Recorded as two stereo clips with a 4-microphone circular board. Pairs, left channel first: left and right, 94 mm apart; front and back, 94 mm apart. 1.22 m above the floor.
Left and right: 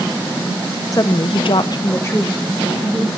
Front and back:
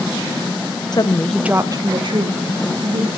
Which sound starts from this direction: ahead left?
A woman speaking, at 0.9 s.